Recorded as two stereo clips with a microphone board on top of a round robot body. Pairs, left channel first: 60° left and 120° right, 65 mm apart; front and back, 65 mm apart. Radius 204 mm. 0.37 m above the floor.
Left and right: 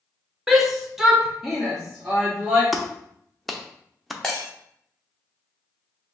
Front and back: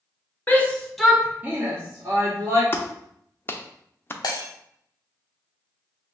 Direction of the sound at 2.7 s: 30° right.